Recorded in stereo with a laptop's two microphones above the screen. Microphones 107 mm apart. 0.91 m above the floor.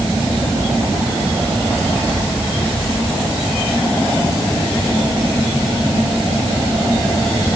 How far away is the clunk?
No clunk in this recording.